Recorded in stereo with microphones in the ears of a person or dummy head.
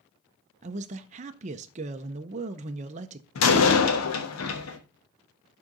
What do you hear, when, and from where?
0.6 s a man speaking: 35° right (ahead or behind), 0.5 m
3.4 s a door slam: 85° left, 1.2 m